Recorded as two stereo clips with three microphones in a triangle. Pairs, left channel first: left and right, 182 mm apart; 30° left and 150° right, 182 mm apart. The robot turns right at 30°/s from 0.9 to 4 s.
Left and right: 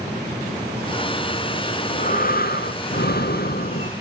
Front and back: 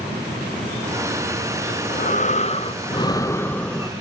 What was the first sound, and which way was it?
Breathing, 50° left.